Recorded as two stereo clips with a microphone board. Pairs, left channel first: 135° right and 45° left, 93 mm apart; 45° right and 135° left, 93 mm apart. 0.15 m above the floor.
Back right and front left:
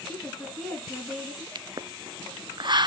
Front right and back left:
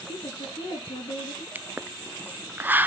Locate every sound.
0.1 s a woman speaking: 55° right, 3.5 m
1.6 s a pop: 70° left, 0.6 m